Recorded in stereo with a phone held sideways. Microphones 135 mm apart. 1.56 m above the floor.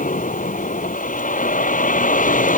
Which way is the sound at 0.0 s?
80° left.